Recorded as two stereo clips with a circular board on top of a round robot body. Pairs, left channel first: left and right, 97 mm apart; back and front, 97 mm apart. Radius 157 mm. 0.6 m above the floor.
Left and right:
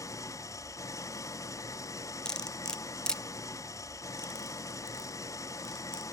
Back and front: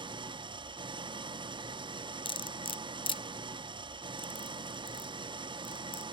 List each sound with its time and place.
0.0 s an engine running: 35° left, 0.8 m
2.2 s cutlery clinking: 170° left, 0.6 m